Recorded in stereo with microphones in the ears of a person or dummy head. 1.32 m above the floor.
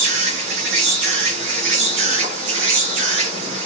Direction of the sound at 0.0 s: 65° right (ahead or behind).